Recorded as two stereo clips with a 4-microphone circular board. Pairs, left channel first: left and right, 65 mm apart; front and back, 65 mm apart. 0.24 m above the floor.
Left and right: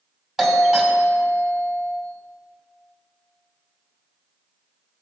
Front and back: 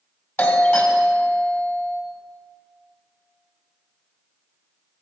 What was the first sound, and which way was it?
A doorbell, 20° right.